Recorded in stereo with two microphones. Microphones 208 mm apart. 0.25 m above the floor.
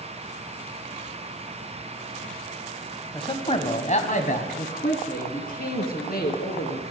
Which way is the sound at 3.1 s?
25° left (ahead or behind).